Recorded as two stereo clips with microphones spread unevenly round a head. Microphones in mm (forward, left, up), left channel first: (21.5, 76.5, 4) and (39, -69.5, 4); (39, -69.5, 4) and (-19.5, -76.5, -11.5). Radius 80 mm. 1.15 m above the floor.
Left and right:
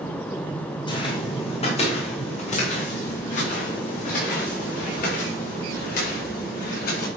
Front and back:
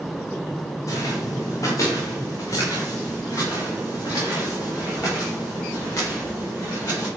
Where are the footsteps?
40° left, 3 m; by 7.1 s 75° left, 8.5 m.